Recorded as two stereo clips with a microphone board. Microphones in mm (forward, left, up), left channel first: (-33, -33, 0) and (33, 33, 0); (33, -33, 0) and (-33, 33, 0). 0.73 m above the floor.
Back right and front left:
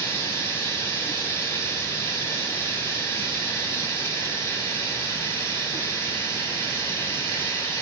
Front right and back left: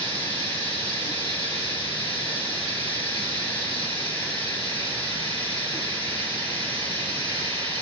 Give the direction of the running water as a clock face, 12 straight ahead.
2 o'clock.